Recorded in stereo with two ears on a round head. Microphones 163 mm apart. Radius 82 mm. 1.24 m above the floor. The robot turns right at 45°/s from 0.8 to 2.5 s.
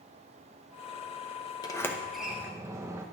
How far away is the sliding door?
About 0.7 m.